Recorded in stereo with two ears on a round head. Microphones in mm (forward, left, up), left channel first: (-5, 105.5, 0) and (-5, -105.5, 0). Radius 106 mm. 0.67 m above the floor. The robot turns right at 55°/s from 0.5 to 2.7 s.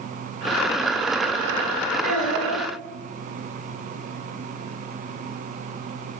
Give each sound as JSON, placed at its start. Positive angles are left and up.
{"t": 2.0, "sound": "a child speaking", "azimuth_deg": -110, "distance_m": 1.9}